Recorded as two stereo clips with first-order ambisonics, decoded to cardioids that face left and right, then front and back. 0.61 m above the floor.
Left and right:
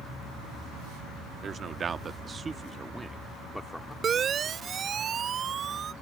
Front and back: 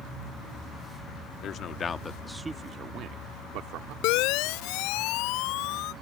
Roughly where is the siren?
Ahead right.